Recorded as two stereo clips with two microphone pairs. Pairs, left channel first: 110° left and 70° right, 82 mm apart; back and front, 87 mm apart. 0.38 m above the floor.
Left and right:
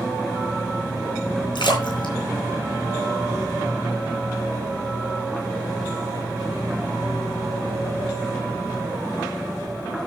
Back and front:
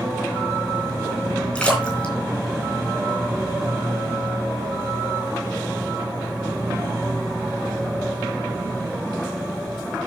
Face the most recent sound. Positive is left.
turn(degrees=105)